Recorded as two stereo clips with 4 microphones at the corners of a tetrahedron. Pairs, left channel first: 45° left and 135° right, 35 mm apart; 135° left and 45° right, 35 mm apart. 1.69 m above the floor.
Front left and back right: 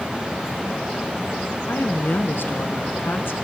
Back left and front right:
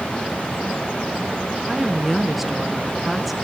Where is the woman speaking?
40° left, 1.1 m.